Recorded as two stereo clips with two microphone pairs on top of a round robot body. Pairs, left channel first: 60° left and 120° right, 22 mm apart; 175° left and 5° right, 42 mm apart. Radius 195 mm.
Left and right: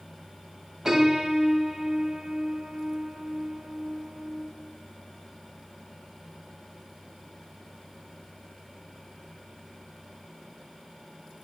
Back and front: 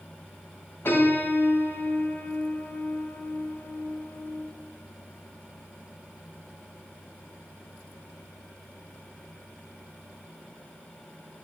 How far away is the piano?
About 2 m.